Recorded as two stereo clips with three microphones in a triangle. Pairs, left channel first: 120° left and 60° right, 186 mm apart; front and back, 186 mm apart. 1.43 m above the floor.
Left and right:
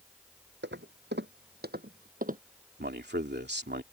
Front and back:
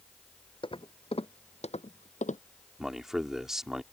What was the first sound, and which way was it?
Footsteps, 60° right.